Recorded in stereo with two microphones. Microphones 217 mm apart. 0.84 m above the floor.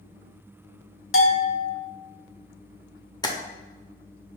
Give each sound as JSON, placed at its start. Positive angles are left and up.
{"t": 1.1, "sound": "a bell", "side_deg": 70, "distance_m": 0.8}
{"t": 3.2, "sound": "tapping", "side_deg": 20, "distance_m": 0.7}